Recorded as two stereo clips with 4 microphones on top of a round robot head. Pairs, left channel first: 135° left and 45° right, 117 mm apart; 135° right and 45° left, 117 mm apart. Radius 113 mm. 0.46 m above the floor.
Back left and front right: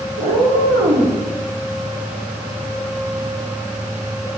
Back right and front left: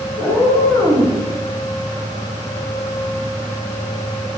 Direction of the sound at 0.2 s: 60° right.